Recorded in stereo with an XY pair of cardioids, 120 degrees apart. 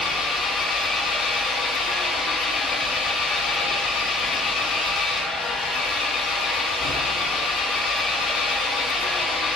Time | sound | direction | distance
0.0 | an engine running | 50° left | 2.5 m